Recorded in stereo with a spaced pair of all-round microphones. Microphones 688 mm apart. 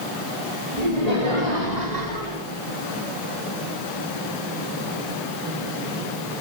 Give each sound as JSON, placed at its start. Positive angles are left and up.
{"t": 0.8, "sound": "laughter", "side_deg": -65, "distance_m": 5.0}